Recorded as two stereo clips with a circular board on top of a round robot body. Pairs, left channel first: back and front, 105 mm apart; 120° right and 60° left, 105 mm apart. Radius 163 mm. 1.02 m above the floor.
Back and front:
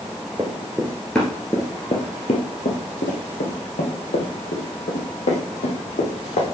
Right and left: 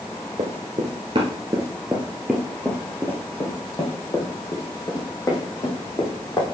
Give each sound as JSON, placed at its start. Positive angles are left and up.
{"t": 0.4, "sound": "running footsteps", "azimuth_deg": 65, "distance_m": 1.3}